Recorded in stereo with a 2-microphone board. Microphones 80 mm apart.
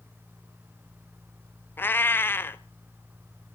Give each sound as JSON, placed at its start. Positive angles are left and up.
{"t": 1.8, "sound": "a cat meowing", "side_deg": 25, "distance_m": 0.6}